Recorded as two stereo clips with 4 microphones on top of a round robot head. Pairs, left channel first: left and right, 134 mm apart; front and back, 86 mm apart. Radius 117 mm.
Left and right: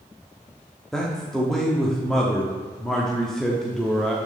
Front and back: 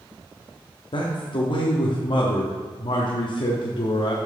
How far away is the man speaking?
About 1.1 m.